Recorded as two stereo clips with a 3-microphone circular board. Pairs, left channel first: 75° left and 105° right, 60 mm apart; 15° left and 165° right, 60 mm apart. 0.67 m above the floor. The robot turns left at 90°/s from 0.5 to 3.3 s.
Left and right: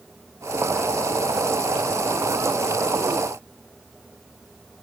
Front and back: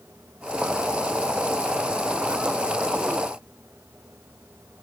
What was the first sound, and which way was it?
Only background noise.